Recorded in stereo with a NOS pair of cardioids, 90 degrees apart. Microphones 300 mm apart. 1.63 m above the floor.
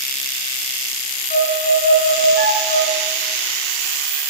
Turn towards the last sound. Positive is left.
turn(degrees=40)